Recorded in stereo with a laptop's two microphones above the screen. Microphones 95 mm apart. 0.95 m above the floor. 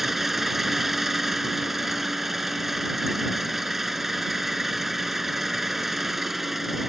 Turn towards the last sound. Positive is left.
turn(degrees=0)  # may be behind; listen again after turning